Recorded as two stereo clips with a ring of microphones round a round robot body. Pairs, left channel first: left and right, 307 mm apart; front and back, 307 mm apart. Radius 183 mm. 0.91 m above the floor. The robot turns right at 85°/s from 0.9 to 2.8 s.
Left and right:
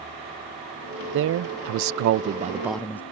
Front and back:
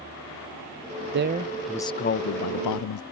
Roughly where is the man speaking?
Behind right.